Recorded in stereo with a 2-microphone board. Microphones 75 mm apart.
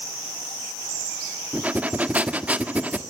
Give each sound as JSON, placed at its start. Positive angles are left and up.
{"t": 1.5, "sound": "breathing", "side_deg": -20, "distance_m": 1.4}